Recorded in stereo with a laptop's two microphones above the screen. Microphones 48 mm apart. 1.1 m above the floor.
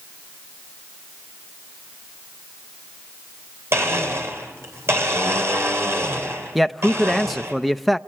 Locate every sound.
3.7 s a blender: 60° right (ahead or behind), 3 m
6.5 s a man speaking: centre (ahead or behind), 0.5 m